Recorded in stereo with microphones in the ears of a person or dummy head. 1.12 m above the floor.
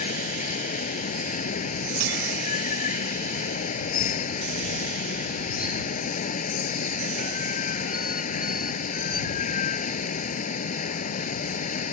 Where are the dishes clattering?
85° right.